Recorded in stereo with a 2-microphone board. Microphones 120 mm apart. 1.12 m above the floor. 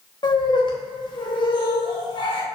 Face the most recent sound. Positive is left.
turn(degrees=40)  # may be behind; listen again after turning